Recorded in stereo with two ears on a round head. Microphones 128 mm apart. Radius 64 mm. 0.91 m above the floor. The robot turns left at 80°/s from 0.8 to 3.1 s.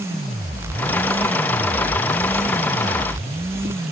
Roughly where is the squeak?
No squeak in this recording.